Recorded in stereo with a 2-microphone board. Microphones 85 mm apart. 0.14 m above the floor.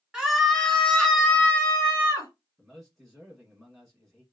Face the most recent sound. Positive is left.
turn(degrees=0)  # may be behind; listen again after turning